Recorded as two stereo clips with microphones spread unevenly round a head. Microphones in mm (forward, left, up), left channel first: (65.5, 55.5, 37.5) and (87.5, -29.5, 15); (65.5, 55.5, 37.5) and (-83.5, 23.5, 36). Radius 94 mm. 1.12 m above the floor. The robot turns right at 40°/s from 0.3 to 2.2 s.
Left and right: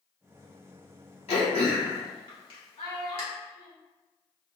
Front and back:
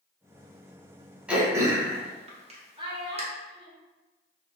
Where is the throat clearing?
110° left, 0.9 m; by 3.2 s 145° left, 0.9 m.